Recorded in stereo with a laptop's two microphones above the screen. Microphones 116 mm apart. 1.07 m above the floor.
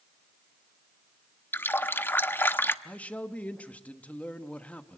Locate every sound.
1.5 s a running tap: 20° left (ahead or behind), 0.9 m
2.9 s a man speaking: 10° left (ahead or behind), 1.4 m